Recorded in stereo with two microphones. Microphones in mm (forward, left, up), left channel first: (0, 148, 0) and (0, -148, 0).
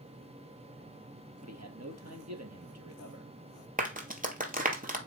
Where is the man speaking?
60° right (ahead or behind), 3 m.